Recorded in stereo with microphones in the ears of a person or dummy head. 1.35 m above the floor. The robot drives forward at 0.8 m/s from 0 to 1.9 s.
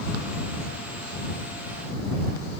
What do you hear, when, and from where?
Only background noise.